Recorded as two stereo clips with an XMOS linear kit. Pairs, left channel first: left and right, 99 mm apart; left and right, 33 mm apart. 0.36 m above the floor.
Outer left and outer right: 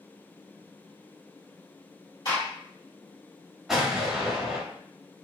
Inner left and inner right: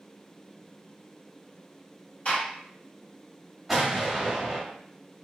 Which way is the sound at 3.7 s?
5° right (ahead or behind).